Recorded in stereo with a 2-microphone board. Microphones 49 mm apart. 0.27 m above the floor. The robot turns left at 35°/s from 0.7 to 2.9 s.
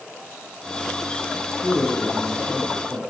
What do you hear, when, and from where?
1.6 s a man speaking: 50° right, 1.0 m; by 3.0 s 95° right, 1.0 m